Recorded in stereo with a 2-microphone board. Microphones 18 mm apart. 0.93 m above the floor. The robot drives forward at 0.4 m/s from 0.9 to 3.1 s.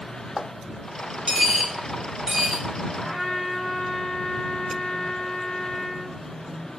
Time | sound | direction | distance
1.3 | a dropped coin | 60° right (ahead or behind) | 2 m
3.0 | a trumpet | 10° right (ahead or behind) | 2.0 m